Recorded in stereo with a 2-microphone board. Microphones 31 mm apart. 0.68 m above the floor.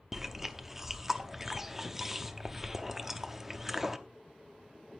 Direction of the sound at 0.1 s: 10° right (ahead or behind).